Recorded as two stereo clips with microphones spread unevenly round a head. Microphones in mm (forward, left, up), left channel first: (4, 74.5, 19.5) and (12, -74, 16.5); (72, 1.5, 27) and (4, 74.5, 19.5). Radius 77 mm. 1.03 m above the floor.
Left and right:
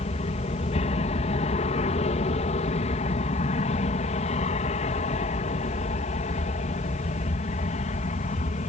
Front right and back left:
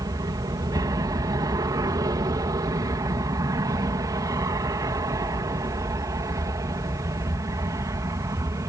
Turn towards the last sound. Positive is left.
turn(degrees=95)